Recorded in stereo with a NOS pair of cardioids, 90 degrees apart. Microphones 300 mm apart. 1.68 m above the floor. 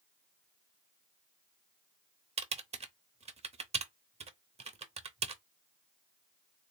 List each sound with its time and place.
2.4 s typing on a keyboard: 20° right, 0.8 m